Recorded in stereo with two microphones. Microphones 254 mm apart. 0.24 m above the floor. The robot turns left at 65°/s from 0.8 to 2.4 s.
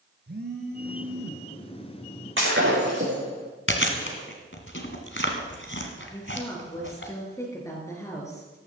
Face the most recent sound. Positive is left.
turn(degrees=10)  # may be behind; listen again after turning